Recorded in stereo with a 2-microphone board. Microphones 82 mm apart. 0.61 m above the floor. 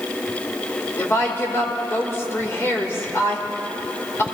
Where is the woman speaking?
35° left (ahead or behind), 2.5 m.